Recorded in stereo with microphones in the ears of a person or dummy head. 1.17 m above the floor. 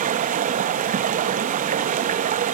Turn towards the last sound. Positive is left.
turn(degrees=-40)  # may be behind; listen again after turning